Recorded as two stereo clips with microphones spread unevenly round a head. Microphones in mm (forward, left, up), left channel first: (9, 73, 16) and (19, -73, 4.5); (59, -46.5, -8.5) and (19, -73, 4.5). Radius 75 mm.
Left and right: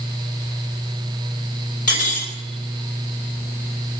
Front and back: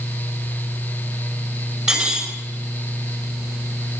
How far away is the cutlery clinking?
About 2 m.